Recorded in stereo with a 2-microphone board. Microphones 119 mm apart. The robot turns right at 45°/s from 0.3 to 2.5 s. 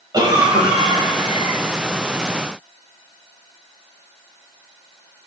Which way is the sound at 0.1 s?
125° right.